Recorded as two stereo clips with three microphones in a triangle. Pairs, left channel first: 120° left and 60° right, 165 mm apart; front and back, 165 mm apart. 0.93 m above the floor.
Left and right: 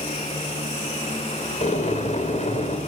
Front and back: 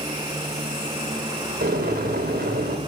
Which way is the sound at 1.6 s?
165° left.